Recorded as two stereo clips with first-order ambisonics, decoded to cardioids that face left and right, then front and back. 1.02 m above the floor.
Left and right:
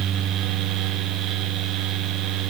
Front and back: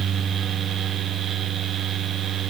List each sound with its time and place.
Only background noise.